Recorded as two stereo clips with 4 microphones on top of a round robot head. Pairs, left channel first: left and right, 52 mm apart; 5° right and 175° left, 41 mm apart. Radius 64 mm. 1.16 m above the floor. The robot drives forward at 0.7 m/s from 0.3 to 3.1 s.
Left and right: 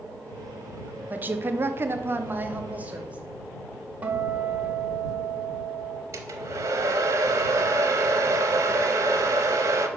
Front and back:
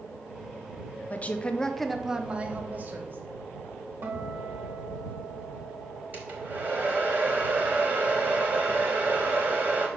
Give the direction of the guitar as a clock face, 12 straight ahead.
5 o'clock.